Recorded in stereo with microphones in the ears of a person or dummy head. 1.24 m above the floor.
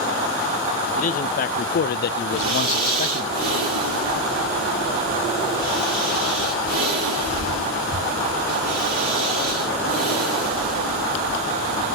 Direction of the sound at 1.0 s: 45° left (ahead or behind).